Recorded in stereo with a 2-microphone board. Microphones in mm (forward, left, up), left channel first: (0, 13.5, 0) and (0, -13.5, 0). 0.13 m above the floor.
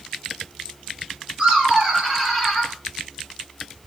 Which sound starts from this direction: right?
Laughter, at 1.4 s.